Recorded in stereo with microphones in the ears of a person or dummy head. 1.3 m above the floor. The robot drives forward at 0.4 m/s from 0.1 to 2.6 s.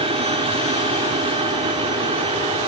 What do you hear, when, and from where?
0.0 s an aircraft: 35° right (ahead or behind); by 2.7 s 30° right (ahead or behind)